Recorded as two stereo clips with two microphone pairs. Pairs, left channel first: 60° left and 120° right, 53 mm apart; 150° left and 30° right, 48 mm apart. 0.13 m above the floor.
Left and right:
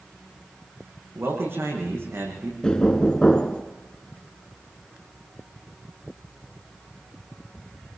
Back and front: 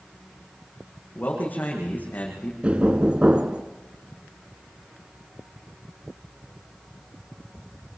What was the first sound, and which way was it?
A man speaking, 160° right.